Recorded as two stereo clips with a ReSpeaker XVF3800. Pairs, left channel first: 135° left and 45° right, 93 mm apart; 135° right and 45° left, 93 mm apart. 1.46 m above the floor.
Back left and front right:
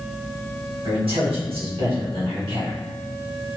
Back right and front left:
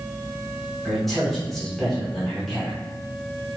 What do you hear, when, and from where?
0.8 s a man speaking: 50° right, 1.2 m